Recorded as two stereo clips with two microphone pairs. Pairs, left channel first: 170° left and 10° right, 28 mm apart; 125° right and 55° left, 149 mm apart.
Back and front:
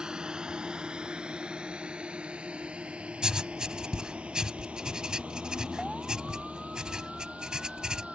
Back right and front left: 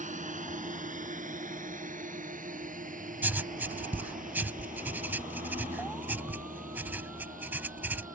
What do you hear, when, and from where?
0.0 s a drone: 45° left; by 8.2 s 30° left
3.2 s writing: 10° right